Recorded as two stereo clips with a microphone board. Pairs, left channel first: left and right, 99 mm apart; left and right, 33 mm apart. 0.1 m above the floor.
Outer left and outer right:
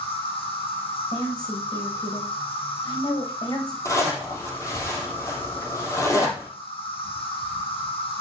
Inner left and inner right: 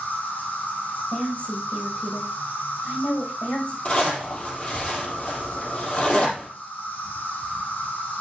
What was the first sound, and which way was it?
An insect, 70° left (ahead or behind).